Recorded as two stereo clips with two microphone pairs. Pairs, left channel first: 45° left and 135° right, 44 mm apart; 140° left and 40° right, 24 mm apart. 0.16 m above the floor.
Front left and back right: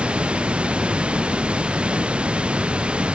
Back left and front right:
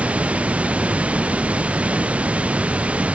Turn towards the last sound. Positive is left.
turn(degrees=-70)